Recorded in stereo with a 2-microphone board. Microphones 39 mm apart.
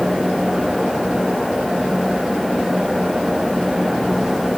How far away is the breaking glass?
No breaking glass in this recording.